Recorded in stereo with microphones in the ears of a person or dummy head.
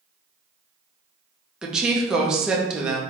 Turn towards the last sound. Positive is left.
turn(degrees=-5)  # may be behind; listen again after turning